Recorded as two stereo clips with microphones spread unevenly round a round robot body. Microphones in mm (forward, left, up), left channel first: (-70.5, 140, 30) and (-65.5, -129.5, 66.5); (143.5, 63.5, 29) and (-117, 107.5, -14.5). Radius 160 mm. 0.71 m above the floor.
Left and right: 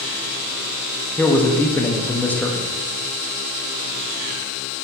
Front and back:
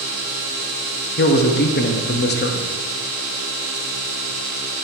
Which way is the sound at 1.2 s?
25° left.